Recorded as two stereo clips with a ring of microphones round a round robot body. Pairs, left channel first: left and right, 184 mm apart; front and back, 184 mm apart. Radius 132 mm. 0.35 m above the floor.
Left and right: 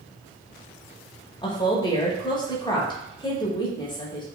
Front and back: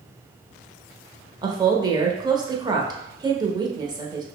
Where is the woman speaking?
135° left, 0.9 m.